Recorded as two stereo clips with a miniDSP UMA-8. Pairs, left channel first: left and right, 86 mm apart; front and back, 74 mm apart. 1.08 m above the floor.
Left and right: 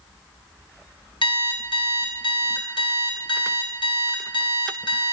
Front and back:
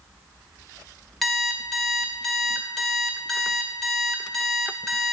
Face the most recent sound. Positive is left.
turn(degrees=85)